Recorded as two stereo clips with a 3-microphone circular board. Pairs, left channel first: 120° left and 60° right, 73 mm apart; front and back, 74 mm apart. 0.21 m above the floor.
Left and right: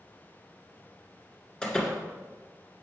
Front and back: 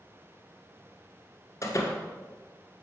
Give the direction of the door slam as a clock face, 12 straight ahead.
11 o'clock.